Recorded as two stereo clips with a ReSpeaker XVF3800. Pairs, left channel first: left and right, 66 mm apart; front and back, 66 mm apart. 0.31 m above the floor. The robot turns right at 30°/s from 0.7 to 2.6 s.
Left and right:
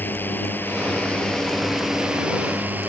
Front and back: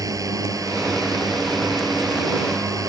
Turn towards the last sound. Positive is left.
turn(degrees=-155)